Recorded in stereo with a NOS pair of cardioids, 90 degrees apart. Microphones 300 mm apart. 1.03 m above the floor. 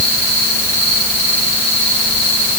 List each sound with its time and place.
Only background noise.